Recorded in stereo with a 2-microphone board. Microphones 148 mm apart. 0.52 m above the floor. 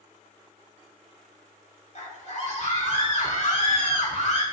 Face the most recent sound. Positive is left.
turn(degrees=50)  # may be behind; listen again after turning